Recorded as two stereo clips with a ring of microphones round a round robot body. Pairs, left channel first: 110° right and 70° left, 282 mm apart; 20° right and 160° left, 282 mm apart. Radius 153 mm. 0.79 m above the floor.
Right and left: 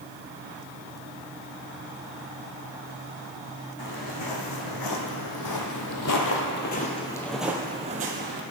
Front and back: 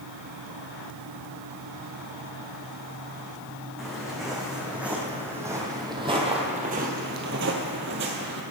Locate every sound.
3.8 s footsteps: 110° right, 2.5 m; by 8.4 s 110° left, 1.2 m